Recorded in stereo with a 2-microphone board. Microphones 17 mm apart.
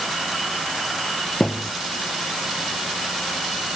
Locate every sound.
1.4 s a thud: 55° left (ahead or behind)